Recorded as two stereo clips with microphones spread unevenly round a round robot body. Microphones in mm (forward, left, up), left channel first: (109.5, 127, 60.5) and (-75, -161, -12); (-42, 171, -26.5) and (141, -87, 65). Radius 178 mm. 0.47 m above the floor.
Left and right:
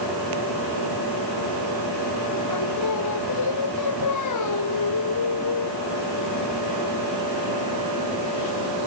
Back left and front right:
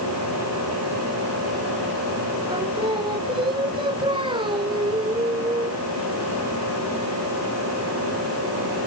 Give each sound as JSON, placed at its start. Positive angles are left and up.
{"t": 2.5, "sound": "singing", "azimuth_deg": 20}